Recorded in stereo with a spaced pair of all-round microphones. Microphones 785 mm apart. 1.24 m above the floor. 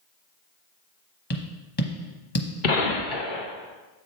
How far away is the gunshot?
About 1.1 m.